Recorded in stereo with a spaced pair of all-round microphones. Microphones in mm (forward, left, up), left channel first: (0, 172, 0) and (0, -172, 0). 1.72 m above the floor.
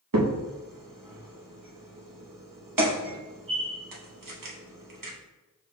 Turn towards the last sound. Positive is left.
turn(degrees=-70)  # may be behind; listen again after turning